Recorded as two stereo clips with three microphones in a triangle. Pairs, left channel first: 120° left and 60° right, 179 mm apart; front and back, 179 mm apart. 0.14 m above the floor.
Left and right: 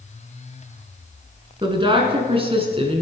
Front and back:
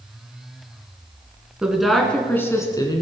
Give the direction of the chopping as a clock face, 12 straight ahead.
I don't hear chopping.